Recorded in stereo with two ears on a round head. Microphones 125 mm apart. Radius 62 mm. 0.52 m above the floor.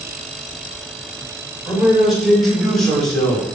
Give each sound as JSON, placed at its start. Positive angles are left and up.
{"t": 1.7, "sound": "a man speaking", "side_deg": 0, "distance_m": 2.5}